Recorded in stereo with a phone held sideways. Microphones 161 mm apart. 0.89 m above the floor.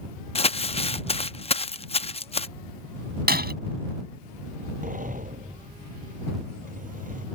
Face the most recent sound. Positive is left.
turn(degrees=-60)  # may be behind; listen again after turning